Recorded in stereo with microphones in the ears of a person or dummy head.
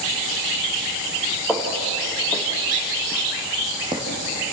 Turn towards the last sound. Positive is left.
turn(degrees=-25)  # may be behind; listen again after turning